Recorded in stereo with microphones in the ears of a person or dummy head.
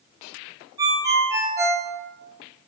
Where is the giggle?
I don't hear a giggle.